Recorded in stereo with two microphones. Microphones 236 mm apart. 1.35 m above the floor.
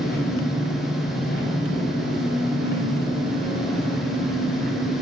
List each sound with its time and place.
0.0 s an engine running: 40° left (ahead or behind), 4 m